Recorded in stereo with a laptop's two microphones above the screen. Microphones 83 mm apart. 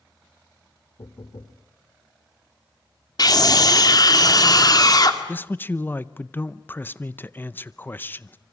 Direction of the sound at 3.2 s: 50° left (ahead or behind).